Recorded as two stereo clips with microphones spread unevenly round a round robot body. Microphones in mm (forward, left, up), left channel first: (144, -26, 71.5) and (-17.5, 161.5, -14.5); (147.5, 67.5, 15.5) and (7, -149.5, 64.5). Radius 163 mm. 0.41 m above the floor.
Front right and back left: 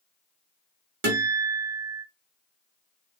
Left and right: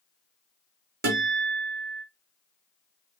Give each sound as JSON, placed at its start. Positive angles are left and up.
{"t": 1.0, "sound": "a guitar", "azimuth_deg": 175, "distance_m": 1.1}